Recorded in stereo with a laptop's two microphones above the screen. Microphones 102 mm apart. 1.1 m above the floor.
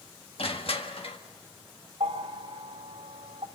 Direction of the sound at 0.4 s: 70° left (ahead or behind).